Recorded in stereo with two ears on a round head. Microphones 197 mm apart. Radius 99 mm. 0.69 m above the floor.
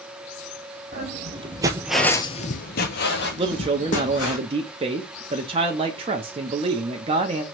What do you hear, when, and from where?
0.9 s footsteps: 35° right (ahead or behind), 1.4 m; by 4.4 s 55° left (ahead or behind), 2.5 m
3.4 s a man speaking: 25° right (ahead or behind), 0.7 m